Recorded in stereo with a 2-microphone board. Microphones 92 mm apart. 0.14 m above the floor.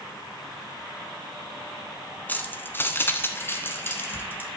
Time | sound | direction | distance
2.3 | keys jangling | 20° left (ahead or behind) | 1.0 m